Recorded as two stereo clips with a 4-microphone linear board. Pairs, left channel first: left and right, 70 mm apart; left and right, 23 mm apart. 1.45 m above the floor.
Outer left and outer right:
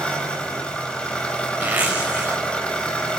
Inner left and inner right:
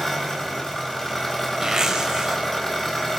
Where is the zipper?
25° right (ahead or behind), 4.5 m.